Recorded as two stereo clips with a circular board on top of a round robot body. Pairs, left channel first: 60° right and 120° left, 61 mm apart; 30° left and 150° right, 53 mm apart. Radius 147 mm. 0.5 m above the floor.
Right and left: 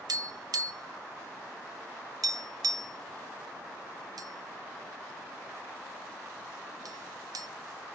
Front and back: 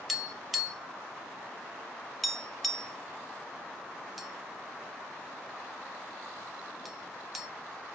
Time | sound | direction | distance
0.1 | tapping | 120° left | 1.3 m